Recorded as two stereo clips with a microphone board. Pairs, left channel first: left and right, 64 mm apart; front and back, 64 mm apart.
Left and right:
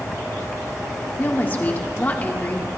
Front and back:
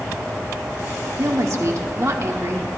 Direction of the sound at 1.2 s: 150° left.